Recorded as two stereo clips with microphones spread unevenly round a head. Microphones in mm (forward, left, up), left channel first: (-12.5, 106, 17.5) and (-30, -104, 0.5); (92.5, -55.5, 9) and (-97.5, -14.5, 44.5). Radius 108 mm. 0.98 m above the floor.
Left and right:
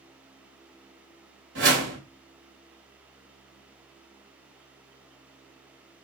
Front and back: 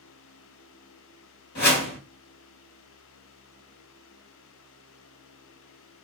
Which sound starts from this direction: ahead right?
A whoosh, at 1.6 s.